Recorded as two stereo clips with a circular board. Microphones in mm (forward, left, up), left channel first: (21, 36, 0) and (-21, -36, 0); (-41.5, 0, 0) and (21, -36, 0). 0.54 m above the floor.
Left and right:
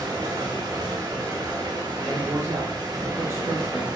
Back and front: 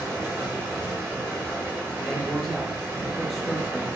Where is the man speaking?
115° right, 0.7 m.